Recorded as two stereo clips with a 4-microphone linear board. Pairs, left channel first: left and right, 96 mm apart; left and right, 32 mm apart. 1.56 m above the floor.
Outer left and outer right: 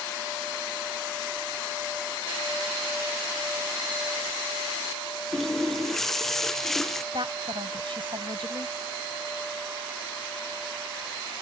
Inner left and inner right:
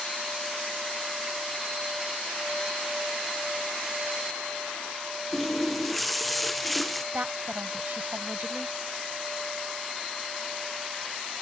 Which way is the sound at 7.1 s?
60° right (ahead or behind).